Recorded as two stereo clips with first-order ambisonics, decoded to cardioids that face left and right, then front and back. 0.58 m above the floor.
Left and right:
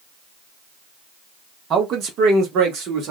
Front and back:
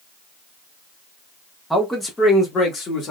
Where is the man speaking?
90° right, 1.0 m; by 3.1 s 55° right, 1.7 m.